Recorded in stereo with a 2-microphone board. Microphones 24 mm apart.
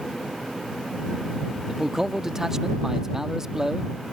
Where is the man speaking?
20° right (ahead or behind).